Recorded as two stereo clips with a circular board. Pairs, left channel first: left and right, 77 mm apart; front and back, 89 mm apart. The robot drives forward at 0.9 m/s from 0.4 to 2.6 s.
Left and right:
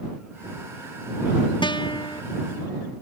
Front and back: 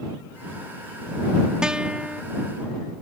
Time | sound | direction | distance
1.6 | a guitar | 100° left | ?